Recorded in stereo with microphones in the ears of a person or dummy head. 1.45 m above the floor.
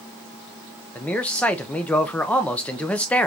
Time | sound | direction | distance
0.9 | a man speaking | 5° left (ahead or behind) | 0.5 m